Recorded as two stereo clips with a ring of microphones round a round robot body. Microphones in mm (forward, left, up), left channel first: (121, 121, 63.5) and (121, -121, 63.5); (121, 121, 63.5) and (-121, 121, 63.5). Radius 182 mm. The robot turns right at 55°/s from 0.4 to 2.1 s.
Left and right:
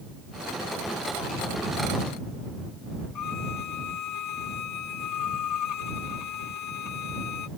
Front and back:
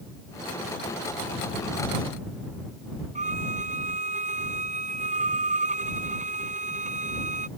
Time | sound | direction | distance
3.1 | a violin | 120° left | ?